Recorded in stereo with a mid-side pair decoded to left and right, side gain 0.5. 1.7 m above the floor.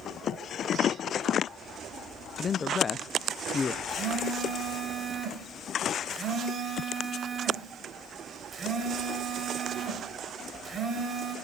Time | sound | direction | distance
2.4 | a man speaking | 35° left | 1.0 m
3.9 | a phone buzzing | 35° right | 6 m